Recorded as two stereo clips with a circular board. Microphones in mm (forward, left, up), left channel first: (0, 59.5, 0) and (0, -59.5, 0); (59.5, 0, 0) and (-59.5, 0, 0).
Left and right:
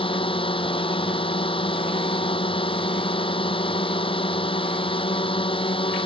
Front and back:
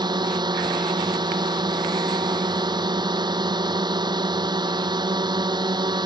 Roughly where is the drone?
Behind left.